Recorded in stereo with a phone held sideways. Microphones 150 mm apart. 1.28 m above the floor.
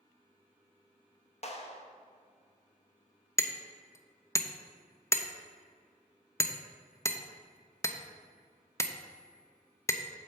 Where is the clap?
50° left (ahead or behind), 1.0 m.